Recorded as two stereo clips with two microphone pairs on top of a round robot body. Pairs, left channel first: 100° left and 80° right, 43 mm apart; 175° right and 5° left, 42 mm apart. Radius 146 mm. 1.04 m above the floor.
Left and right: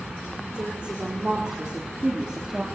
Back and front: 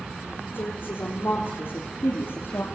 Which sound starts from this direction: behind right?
A woman speaking, at 0.5 s.